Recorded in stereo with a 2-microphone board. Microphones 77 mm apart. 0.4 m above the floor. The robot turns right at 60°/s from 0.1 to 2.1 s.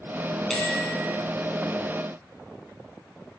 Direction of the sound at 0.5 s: 5° left (ahead or behind).